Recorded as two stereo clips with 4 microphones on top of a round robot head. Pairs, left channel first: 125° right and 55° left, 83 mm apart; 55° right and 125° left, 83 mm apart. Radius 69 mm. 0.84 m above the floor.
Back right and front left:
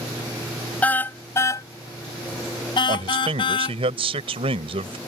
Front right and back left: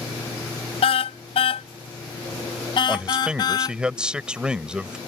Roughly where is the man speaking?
Ahead left.